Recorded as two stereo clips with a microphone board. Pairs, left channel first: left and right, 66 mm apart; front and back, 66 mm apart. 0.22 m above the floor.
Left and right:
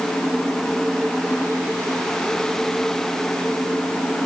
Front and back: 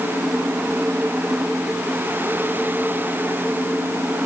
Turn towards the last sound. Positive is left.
No sound to turn to.